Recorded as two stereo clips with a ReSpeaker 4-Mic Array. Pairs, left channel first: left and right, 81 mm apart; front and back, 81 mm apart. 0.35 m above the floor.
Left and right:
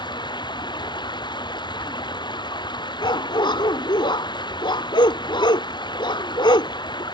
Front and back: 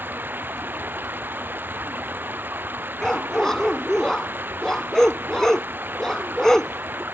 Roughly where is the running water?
Behind left.